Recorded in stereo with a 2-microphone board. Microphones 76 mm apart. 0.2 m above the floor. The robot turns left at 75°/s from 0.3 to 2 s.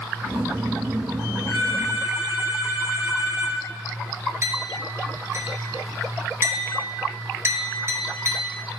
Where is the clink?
40° right (ahead or behind), 2 m.